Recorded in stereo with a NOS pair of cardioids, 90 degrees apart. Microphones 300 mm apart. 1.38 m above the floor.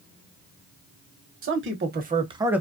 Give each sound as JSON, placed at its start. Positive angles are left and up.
{"t": 1.4, "sound": "a man speaking", "azimuth_deg": -45, "distance_m": 1.0}